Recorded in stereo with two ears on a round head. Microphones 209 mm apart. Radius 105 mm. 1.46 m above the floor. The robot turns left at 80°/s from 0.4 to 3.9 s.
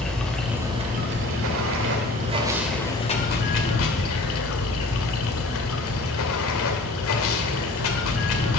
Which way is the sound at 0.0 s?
5° left.